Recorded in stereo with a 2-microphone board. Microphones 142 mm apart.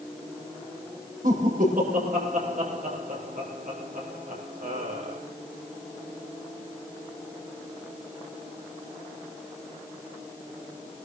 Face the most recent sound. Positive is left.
turn(degrees=-80)